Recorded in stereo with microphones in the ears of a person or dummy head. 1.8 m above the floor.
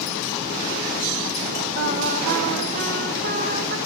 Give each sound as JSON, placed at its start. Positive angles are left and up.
{"t": 1.8, "sound": "singing", "side_deg": -45, "distance_m": 1.1}